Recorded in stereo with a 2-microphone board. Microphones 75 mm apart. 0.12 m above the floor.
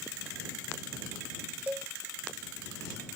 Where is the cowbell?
20° right (ahead or behind).